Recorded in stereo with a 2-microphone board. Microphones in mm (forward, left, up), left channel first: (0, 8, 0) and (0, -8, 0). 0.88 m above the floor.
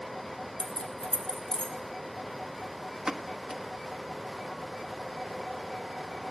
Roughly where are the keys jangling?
Left.